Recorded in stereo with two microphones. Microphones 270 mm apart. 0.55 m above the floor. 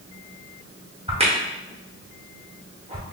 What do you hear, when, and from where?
1.1 s a crack: 20° right (ahead or behind), 0.8 m